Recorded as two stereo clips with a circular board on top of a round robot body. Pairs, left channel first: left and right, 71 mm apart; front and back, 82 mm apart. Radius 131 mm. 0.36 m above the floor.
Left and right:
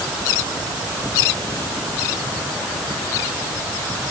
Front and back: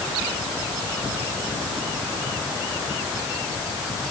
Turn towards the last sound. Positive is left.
No sound to turn to.